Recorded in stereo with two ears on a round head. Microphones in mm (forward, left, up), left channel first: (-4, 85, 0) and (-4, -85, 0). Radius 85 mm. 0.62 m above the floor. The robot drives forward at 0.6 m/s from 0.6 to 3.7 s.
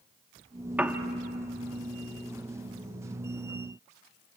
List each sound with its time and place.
0.8 s a piano: 10° right (ahead or behind), 1.1 m; by 1.0 s 5° right (ahead or behind), 1.2 m